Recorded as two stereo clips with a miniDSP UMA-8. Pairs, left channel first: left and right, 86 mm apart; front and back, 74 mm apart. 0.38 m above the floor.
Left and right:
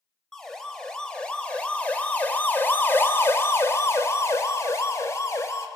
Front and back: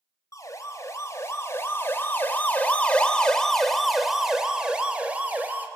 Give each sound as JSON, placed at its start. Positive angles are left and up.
{"t": 0.3, "sound": "a siren", "azimuth_deg": 5, "distance_m": 3.0}